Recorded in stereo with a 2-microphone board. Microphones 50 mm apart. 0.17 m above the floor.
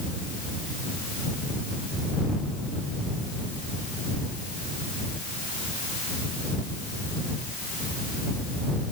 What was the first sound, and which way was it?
Only background noise.